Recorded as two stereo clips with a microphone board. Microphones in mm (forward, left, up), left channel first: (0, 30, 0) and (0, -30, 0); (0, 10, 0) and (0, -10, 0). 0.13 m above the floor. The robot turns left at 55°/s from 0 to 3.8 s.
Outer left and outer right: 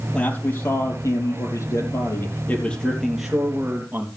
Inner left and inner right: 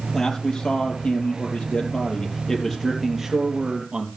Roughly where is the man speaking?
Behind.